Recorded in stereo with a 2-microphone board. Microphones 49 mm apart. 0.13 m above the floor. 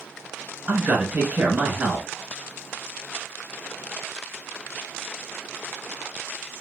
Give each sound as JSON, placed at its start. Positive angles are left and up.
{"t": 0.7, "sound": "a man speaking", "side_deg": -25, "distance_m": 1.2}